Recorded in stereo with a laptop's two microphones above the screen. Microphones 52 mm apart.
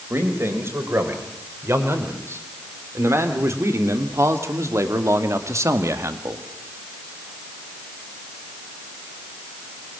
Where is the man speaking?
60° right (ahead or behind), 4.5 m; by 6.5 s 70° right (ahead or behind), 1.5 m.